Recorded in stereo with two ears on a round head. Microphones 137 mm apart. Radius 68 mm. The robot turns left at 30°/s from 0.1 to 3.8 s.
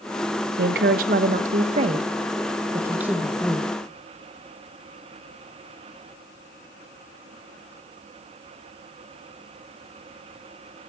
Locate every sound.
0.6 s a woman speaking: 95° right, 0.9 m; by 3.7 s 170° left, 0.9 m